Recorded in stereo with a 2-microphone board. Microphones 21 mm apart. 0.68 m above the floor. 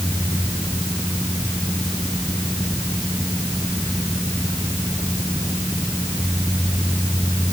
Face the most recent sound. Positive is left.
No sound to turn to.